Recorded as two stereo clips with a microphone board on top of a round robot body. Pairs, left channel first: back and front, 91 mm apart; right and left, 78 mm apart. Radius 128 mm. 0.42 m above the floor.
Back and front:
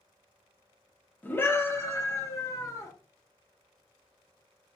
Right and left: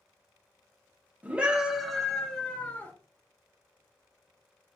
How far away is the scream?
About 1.0 m.